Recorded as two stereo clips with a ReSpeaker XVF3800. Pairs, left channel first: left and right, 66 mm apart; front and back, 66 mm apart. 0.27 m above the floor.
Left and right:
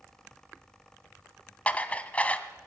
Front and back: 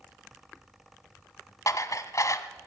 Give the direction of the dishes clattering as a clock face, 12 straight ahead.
11 o'clock.